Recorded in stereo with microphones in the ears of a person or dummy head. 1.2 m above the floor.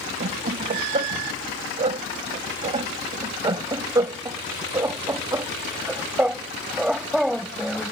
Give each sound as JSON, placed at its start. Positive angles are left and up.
{"t": 0.2, "sound": "laughter", "side_deg": -40}